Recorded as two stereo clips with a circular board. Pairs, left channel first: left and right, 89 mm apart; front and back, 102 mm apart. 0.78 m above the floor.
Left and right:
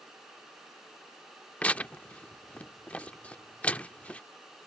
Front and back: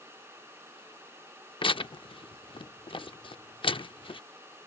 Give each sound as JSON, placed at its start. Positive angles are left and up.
{"t": 1.6, "sound": "tearing paper", "azimuth_deg": 15}